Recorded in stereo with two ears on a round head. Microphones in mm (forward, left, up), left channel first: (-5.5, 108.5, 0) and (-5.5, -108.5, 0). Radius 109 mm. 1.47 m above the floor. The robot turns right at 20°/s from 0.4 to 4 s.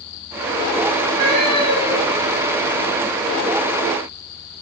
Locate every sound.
1.1 s a cat meowing: 80° right, 6 m; by 2.3 s 60° right (ahead or behind), 6 m